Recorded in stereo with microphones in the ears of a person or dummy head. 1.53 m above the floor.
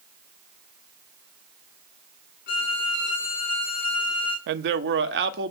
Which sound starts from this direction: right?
A man speaking, at 4.5 s.